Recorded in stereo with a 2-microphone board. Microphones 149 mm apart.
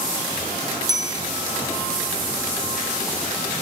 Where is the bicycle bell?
25° right (ahead or behind), 5 m.